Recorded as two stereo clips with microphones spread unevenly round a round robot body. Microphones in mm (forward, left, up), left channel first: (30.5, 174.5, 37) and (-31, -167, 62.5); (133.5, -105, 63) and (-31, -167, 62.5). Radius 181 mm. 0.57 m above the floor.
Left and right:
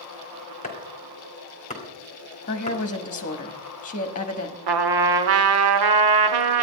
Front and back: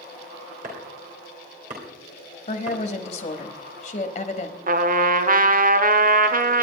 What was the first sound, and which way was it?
Chopping, 150° left.